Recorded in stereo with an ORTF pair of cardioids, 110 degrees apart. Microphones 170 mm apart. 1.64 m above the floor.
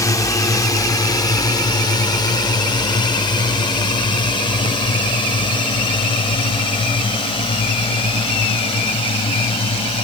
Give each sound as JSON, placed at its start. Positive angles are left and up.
{"t": 0.0, "sound": "a drone", "azimuth_deg": 20}